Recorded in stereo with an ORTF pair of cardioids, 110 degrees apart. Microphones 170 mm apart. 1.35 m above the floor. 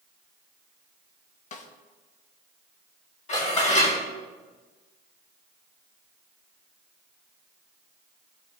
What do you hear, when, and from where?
1.5 s a snare drum: 45° left, 1.1 m
3.3 s dishes clattering: 45° left, 4 m